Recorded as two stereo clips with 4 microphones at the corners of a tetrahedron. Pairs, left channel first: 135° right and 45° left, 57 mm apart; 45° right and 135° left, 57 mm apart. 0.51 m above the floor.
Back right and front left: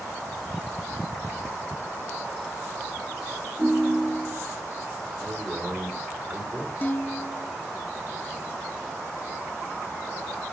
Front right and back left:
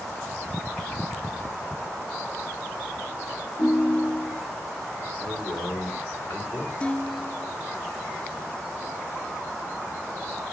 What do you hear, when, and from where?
3.6 s a ringtone: 45° right, 1.9 m
5.2 s a man speaking: 30° right, 5.5 m
6.8 s dishes clattering: 100° right, 0.6 m